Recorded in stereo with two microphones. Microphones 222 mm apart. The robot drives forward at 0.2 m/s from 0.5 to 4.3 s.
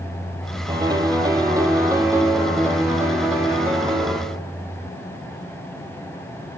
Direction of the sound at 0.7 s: 20° right (ahead or behind).